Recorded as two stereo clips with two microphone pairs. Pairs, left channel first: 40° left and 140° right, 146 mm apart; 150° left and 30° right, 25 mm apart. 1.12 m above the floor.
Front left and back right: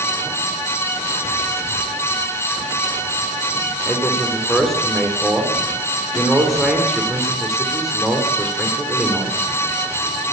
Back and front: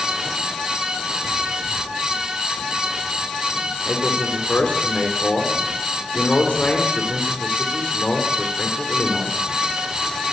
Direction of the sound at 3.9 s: 125° left.